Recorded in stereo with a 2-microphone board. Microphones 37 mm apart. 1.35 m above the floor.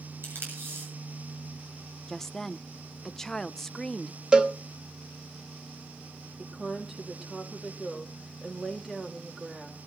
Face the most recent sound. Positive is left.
turn(degrees=-10)  # may be behind; listen again after turning